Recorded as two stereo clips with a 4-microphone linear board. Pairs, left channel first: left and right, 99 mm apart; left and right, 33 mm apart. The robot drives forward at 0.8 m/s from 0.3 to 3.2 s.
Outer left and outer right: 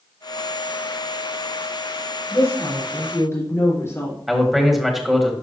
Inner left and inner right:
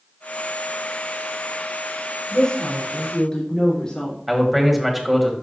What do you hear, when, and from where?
2.3 s a woman speaking: 35° left (ahead or behind), 3.5 m; by 4.2 s 30° left (ahead or behind), 4 m
4.3 s a man speaking: centre (ahead or behind), 1.6 m